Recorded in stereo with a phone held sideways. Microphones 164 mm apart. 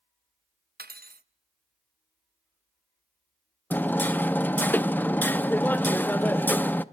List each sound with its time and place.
0.8 s cutlery clinking: 70° right (ahead or behind), 0.6 m
3.7 s hammering: 10° left (ahead or behind), 0.5 m